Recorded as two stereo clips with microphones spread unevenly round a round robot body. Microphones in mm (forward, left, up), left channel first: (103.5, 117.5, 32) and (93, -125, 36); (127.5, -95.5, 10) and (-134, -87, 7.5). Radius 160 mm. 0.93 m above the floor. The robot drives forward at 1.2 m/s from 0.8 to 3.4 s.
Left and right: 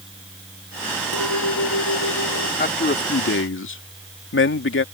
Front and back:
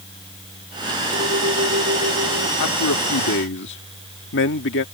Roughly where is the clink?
Behind left.